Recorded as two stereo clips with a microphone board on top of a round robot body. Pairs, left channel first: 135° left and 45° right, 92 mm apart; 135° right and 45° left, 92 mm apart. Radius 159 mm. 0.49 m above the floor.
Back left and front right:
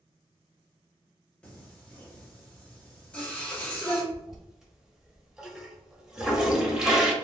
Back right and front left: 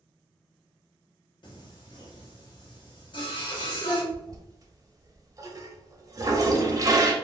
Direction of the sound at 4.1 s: 35° left.